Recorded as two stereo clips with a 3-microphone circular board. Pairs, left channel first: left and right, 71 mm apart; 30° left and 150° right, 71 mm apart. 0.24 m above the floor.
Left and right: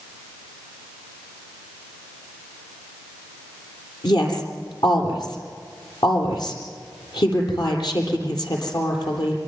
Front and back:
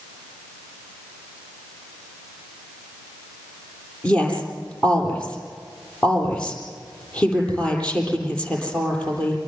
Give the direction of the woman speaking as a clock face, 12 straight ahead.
9 o'clock.